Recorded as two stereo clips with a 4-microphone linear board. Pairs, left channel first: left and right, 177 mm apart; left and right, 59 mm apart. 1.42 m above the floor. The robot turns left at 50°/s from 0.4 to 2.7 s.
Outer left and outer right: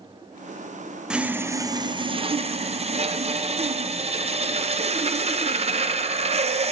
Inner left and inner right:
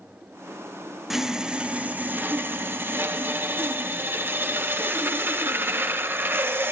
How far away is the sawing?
About 0.6 m.